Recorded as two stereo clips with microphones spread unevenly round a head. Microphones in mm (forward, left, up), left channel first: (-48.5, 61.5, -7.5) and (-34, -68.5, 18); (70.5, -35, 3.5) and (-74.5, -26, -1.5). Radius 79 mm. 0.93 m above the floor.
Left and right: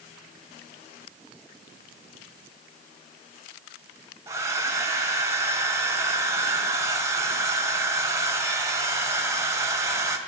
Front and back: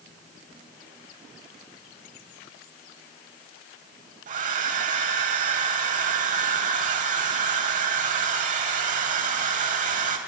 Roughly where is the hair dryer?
Behind right.